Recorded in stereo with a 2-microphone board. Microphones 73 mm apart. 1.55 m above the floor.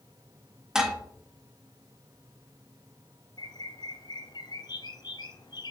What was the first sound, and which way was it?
Dishes clattering, 5° right (ahead or behind).